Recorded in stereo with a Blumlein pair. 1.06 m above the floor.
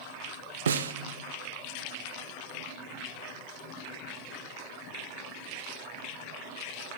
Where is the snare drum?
65° right, 0.5 m.